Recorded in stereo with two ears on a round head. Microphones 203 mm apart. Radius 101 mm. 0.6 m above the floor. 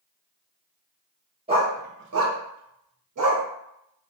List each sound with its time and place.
1.5 s a dog barking: 25° right (ahead or behind), 0.6 m; by 3.4 s 65° right (ahead or behind), 1.0 m